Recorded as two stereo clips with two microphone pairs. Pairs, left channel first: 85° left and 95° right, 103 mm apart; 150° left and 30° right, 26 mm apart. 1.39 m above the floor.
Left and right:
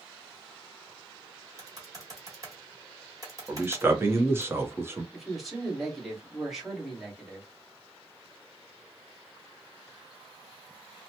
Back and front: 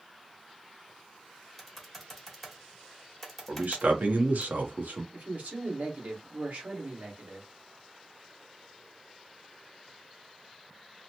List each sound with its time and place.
1.6 s typing on a keyboard: 130° right, 1.3 m
3.5 s a man speaking: 30° right, 0.9 m
5.1 s a man speaking: 5° right, 1.5 m